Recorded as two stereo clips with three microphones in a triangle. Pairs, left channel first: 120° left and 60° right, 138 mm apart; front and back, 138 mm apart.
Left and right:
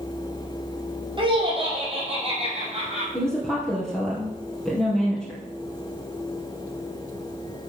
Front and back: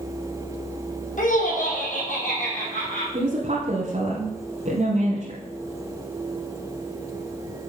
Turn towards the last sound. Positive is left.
turn(degrees=-150)